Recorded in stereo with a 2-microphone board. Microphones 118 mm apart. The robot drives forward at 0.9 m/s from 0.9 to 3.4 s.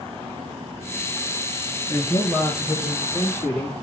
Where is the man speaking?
25° left (ahead or behind), 3 m; by 3.8 s 15° left (ahead or behind), 4 m.